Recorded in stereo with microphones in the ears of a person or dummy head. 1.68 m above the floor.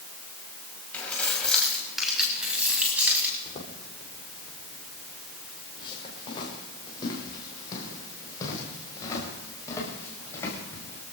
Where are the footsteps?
40° left (ahead or behind), 5 m; by 11.0 s 20° left (ahead or behind), 8.5 m.